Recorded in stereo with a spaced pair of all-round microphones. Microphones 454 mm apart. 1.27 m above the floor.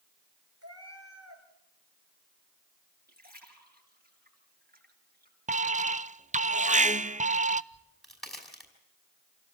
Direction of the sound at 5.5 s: 15° right (ahead or behind).